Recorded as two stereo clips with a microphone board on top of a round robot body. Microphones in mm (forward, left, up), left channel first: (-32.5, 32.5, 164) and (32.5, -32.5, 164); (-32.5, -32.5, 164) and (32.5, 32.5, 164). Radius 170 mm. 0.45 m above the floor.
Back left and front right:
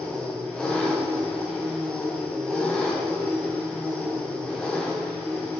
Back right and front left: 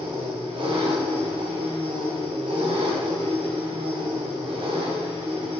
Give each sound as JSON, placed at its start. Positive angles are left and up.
{"t": 0.0, "sound": "an engine running", "azimuth_deg": 55, "distance_m": 3.0}